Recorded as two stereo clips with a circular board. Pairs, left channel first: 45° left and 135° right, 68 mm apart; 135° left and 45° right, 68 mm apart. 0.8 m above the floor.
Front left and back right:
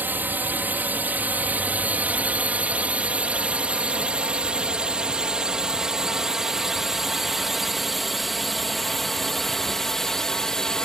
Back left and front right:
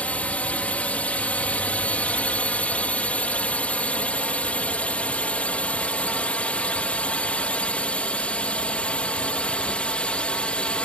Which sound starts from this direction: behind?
A drone, at 0.0 s.